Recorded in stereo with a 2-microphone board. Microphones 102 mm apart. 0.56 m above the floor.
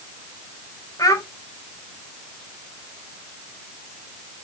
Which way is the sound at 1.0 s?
35° left (ahead or behind).